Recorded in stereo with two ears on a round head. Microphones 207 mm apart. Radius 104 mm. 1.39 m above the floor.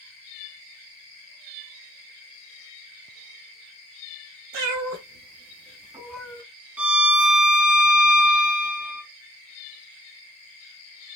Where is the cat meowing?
65° right (ahead or behind), 1.8 m; by 6.4 s 15° left (ahead or behind), 0.9 m.